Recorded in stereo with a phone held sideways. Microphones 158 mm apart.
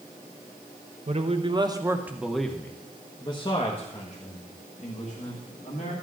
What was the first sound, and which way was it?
A man speaking, 45° right (ahead or behind).